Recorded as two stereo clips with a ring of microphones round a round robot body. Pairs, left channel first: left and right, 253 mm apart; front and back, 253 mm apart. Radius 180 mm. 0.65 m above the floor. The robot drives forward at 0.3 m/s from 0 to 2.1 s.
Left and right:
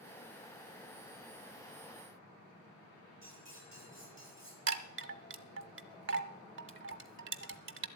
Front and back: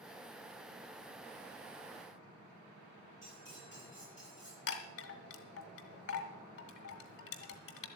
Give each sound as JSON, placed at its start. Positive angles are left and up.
{"t": 3.2, "sound": "cutlery clinking", "azimuth_deg": -130, "distance_m": 8.0}
{"t": 4.7, "sound": "a chime", "azimuth_deg": -55, "distance_m": 1.0}